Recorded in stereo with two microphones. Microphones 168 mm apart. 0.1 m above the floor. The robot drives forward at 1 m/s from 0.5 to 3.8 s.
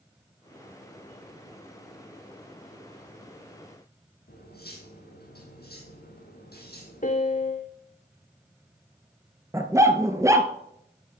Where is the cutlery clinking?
70° left (ahead or behind), 2.5 m.